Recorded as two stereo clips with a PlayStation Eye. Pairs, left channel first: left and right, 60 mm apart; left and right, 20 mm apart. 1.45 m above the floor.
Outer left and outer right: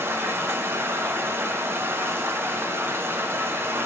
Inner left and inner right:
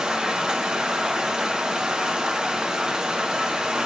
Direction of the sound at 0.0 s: 40° right (ahead or behind).